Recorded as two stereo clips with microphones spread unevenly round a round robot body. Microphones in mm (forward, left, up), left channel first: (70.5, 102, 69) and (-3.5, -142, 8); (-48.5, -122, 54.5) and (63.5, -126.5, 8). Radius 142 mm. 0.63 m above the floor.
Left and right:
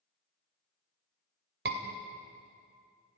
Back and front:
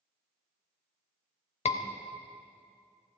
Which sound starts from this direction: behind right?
A scream, at 1.6 s.